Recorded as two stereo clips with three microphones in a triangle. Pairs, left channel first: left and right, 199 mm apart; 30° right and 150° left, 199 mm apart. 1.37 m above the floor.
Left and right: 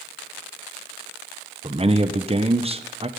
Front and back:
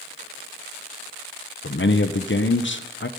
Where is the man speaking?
30° right, 1.0 m.